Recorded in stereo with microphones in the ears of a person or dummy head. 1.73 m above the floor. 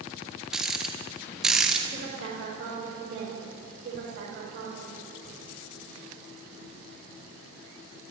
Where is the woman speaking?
50° right (ahead or behind), 6.5 m.